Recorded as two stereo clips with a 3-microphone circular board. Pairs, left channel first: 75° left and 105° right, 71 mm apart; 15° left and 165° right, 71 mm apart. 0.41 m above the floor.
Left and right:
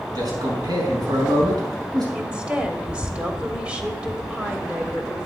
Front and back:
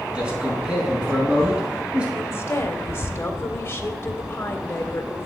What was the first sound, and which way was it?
A man speaking, 90° right.